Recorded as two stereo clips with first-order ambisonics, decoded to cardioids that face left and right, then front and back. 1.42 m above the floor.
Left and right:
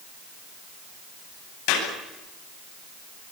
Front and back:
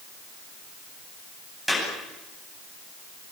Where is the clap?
90° left, 10 m.